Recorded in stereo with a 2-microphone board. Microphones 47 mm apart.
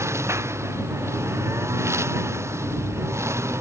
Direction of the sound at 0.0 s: 80° right.